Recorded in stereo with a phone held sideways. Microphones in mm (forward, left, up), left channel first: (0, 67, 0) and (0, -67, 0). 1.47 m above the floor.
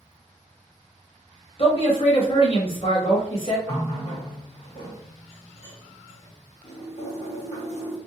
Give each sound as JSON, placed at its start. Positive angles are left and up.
{"t": 1.6, "sound": "a man speaking", "side_deg": 45, "distance_m": 1.0}
{"t": 3.7, "sound": "a running tap", "side_deg": 55, "distance_m": 1.1}